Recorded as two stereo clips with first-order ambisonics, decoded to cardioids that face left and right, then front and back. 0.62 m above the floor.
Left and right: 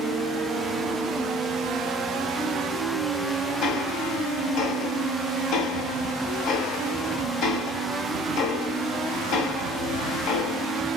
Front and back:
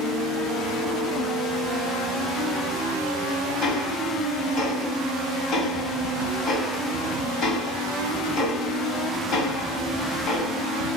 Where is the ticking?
45° left, 1.0 m.